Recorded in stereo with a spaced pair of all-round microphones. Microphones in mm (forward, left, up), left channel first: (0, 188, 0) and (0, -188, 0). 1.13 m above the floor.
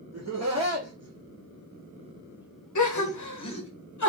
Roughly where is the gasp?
Left.